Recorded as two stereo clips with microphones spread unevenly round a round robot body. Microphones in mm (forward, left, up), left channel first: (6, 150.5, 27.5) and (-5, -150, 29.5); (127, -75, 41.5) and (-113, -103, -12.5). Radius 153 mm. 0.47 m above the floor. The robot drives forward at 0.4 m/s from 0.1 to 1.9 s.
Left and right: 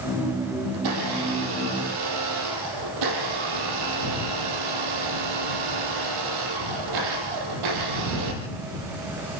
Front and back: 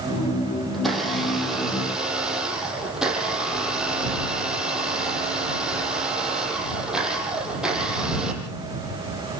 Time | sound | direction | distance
0.7 | a blender | 80° right | 7 m